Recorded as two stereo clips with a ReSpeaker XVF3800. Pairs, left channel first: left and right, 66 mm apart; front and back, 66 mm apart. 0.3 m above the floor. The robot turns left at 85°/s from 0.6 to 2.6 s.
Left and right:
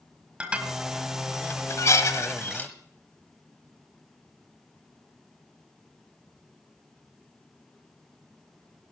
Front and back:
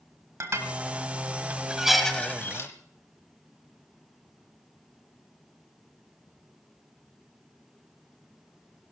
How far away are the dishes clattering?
About 1.3 m.